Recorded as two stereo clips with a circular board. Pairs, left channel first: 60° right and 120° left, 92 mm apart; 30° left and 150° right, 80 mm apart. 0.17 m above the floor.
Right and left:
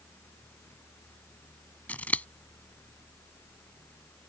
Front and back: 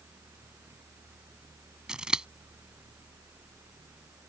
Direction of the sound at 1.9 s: 90° right.